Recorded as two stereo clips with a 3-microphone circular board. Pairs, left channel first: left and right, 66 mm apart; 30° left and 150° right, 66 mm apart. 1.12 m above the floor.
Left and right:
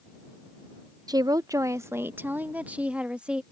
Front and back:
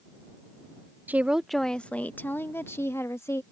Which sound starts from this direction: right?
A woman speaking, at 1.1 s.